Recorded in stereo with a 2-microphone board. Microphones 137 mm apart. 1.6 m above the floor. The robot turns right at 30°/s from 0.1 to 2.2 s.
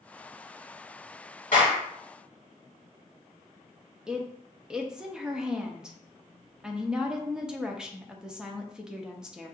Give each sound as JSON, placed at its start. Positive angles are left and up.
{"t": 1.5, "sound": "a clap", "side_deg": 80, "distance_m": 1.8}
{"t": 4.1, "sound": "a woman speaking", "side_deg": -5, "distance_m": 0.6}